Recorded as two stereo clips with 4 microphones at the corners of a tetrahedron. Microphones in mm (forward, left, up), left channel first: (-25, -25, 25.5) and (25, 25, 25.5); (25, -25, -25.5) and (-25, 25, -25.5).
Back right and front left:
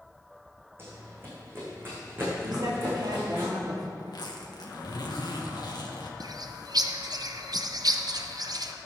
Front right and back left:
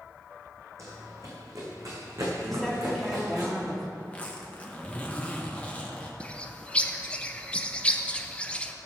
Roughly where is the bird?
Ahead left.